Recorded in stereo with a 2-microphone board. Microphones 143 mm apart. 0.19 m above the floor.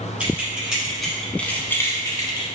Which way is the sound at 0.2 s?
10° right (ahead or behind).